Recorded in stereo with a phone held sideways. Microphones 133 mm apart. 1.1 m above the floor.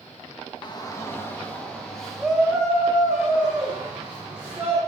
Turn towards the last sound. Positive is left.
turn(degrees=-15)  # may be behind; listen again after turning